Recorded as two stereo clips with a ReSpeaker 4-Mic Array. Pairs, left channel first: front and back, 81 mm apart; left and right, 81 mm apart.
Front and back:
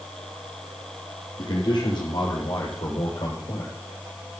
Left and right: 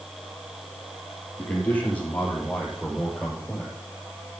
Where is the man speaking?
25° left, 6 m; by 3.8 s 5° left, 7 m.